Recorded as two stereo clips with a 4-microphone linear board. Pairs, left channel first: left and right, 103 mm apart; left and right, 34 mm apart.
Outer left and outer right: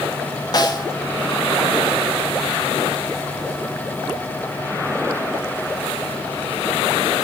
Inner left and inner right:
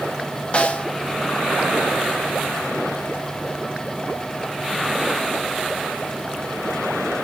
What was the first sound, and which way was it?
A snare drum, 40° left (ahead or behind).